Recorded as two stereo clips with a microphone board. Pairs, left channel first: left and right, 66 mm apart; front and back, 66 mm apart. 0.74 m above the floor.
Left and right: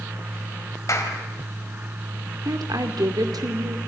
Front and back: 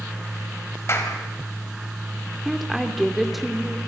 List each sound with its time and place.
0.9 s a clap: 50° left, 4 m
2.5 s a woman speaking: 90° right, 2.5 m